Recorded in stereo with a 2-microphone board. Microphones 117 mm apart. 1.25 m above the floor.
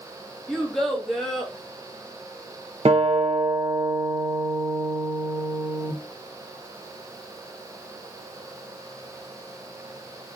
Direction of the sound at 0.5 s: 5° left (ahead or behind).